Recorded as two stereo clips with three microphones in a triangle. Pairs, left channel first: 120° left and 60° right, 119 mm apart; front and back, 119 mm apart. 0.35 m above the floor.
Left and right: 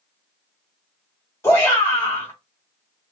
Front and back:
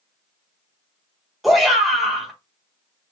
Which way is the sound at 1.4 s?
90° left.